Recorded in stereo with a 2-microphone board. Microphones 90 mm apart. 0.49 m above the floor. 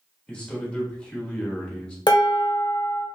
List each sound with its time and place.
0.3 s a man speaking: 15° left (ahead or behind), 1.2 m
2.1 s dishes clattering: 55° left (ahead or behind), 0.8 m